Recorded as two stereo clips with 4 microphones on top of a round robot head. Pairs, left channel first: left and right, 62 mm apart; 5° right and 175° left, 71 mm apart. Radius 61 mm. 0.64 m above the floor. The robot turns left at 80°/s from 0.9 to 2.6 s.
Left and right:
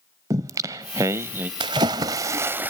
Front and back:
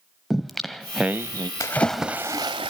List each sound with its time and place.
0.3 s singing: 95° right, 0.5 m; by 1.5 s 140° right, 0.5 m
1.6 s a splash: 65° right, 0.6 m; by 2.7 s 145° right, 0.6 m